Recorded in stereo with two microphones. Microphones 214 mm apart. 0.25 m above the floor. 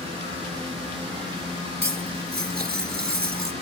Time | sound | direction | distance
1.8 | cutlery clinking | 50° right (ahead or behind) | 2 m